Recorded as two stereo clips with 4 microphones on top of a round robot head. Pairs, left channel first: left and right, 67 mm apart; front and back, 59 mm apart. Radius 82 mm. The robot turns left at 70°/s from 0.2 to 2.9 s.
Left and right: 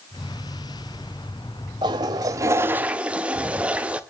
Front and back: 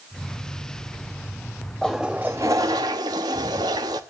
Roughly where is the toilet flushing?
Right.